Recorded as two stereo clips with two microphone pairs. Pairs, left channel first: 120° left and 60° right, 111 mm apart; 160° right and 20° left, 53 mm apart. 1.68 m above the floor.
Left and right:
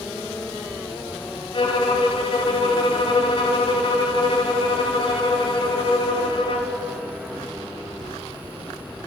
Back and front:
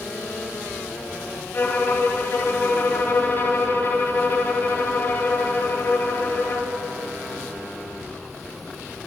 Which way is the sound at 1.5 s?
150° left.